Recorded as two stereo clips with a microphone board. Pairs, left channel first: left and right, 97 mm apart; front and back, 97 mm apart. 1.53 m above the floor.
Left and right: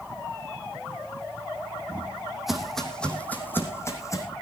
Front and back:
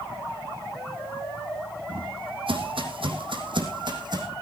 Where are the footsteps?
160° right, 3.5 m; by 4.3 s 145° left, 4 m.